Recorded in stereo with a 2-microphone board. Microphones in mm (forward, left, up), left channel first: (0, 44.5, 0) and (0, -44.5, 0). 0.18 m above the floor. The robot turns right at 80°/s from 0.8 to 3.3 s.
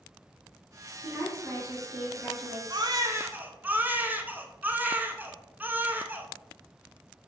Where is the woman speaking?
115° right, 2.0 m; by 2.6 s 10° left, 2.0 m.